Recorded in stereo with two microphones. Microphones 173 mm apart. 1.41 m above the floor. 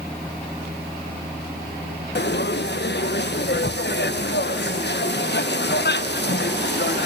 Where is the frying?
80° left, 1.5 m.